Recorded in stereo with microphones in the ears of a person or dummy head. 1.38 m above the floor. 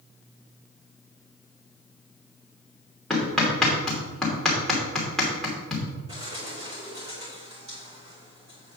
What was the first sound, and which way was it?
Hammering, centre (ahead or behind).